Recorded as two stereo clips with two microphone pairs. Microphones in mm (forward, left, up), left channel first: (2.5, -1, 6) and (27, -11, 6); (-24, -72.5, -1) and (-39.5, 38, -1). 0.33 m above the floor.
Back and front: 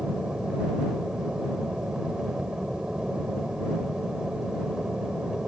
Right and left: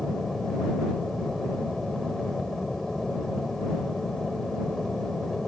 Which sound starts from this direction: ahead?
An aircraft, at 0.0 s.